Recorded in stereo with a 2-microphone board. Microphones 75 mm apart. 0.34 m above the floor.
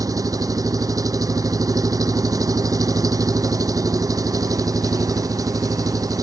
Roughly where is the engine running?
Right.